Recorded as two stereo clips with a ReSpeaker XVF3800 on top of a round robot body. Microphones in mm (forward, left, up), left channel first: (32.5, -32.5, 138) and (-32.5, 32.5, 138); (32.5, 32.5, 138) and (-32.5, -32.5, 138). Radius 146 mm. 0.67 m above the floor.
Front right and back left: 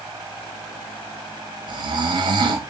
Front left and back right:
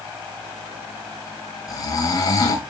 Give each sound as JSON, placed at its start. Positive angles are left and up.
{"t": 1.7, "sound": "snoring", "azimuth_deg": 95, "distance_m": 0.8}